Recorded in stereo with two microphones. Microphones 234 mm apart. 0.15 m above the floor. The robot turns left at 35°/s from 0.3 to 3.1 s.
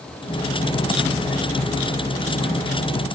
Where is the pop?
No pop in this recording.